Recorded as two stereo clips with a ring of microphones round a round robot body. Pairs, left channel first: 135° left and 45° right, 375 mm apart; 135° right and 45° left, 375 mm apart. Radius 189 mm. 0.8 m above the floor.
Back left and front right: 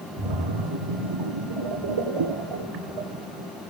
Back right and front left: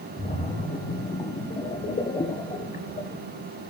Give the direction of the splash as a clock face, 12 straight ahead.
2 o'clock.